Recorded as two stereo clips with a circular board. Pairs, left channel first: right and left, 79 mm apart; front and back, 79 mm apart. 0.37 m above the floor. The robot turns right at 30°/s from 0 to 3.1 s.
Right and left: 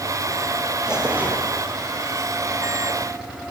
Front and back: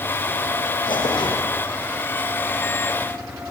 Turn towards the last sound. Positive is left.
turn(degrees=75)